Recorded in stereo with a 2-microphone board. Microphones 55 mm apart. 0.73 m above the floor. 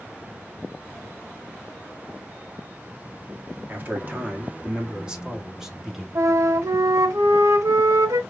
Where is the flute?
75° right (ahead or behind), 1.1 m.